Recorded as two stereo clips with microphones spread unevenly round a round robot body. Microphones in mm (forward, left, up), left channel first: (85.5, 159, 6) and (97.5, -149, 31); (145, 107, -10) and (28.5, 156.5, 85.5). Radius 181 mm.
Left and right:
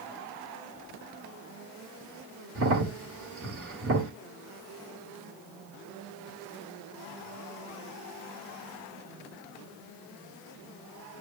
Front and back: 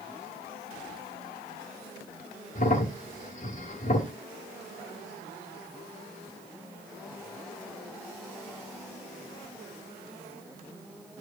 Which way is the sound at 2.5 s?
40° right.